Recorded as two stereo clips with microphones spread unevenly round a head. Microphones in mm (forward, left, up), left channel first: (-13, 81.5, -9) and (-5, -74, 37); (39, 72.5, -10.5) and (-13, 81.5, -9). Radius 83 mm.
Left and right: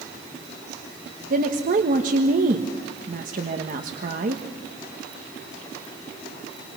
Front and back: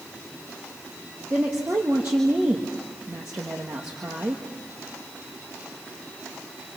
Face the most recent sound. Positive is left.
turn(degrees=-130)